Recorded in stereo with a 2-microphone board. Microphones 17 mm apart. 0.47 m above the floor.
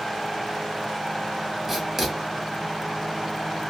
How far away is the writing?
About 1.1 m.